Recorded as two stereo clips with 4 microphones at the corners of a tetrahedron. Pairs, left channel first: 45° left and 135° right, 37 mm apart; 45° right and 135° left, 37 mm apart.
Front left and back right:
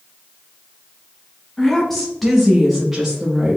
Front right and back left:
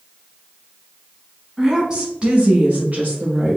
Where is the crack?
No crack in this recording.